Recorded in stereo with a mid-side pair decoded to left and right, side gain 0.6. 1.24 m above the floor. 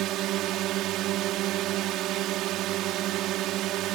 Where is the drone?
65° right.